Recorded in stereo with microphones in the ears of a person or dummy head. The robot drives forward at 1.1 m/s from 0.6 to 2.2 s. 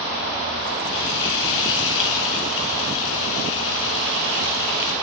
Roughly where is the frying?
Left.